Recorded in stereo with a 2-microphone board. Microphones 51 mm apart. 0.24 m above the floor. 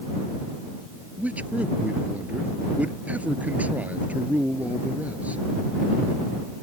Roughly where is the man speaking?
Right.